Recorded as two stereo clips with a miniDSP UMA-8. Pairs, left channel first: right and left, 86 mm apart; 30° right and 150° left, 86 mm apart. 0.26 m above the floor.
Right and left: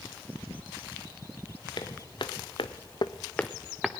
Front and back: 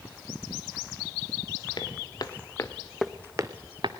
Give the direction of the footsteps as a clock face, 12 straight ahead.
2 o'clock.